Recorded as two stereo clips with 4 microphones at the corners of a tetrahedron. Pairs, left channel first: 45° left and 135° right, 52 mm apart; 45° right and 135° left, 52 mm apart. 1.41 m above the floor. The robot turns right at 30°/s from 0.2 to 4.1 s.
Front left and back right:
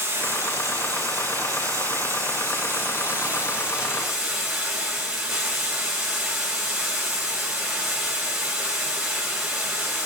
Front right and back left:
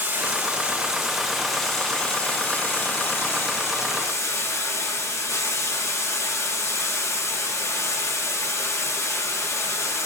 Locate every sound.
0.0 s running water: 175° right, 3 m; by 10.1 s 55° right, 3 m